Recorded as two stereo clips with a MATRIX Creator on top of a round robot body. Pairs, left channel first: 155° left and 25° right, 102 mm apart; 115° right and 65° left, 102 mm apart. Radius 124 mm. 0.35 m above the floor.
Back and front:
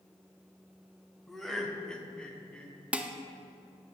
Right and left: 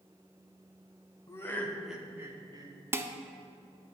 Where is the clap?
No clap in this recording.